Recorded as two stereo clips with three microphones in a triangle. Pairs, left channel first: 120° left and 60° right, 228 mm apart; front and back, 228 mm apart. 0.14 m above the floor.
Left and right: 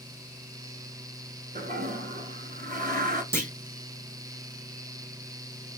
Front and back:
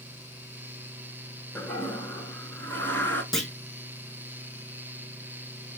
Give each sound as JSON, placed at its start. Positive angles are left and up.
{"t": 1.6, "sound": "a toilet flushing", "azimuth_deg": -80, "distance_m": 0.9}
{"t": 3.3, "sound": "a clunk", "azimuth_deg": -90, "distance_m": 0.8}